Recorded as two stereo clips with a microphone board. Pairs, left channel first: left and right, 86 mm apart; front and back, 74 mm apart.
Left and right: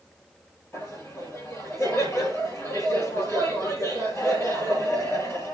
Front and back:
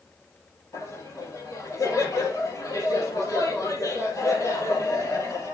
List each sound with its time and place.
0.7 s laughter: 35° left, 3.5 m